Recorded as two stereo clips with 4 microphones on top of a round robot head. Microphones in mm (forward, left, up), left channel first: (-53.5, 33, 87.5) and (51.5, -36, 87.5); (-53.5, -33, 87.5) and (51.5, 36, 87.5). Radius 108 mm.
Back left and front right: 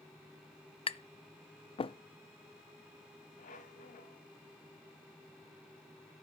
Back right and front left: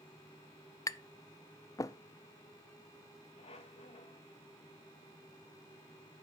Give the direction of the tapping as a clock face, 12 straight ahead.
7 o'clock.